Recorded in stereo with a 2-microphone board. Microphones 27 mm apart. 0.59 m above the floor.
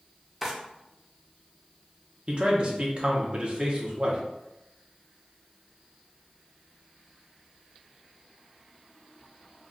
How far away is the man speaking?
About 0.7 m.